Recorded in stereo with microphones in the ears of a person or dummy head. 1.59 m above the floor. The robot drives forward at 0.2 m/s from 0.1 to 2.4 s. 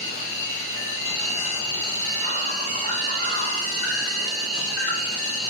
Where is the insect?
60° left (ahead or behind), 1.6 m; by 5.5 s 50° left (ahead or behind), 1.8 m.